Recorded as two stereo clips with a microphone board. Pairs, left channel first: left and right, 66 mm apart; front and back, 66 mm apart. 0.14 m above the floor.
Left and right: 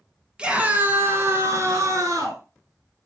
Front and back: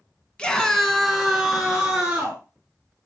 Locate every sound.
0.4 s a scream: 50° right, 1.2 m; by 2.4 s 105° right, 2.5 m